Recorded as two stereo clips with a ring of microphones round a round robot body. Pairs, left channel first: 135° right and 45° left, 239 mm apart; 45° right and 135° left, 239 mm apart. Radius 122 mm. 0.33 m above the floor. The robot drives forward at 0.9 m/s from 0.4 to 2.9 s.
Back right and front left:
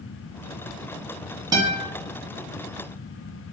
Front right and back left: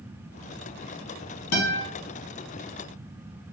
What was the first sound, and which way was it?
A guitar, 25° right.